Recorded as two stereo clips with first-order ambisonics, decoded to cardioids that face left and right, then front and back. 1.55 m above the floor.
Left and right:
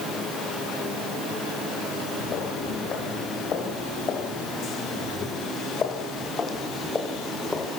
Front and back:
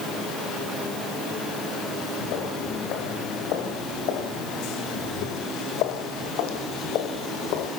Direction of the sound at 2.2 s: 35° left.